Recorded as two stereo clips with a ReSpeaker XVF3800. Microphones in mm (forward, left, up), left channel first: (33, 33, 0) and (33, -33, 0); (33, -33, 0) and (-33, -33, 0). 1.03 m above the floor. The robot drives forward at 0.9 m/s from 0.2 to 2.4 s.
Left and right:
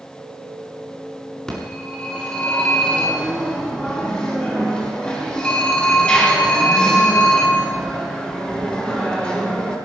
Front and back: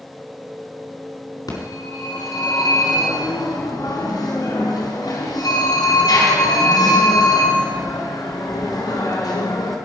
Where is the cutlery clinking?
No cutlery clinking in this recording.